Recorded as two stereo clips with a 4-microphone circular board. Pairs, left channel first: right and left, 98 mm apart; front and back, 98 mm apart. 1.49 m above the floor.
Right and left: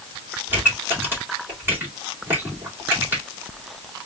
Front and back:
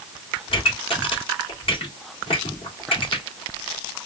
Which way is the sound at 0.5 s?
20° left.